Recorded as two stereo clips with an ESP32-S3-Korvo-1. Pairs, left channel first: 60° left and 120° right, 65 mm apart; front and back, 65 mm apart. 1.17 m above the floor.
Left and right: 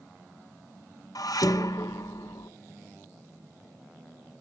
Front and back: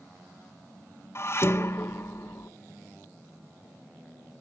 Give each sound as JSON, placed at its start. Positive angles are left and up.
{"t": 1.1, "sound": "dishes clattering", "azimuth_deg": 45, "distance_m": 0.5}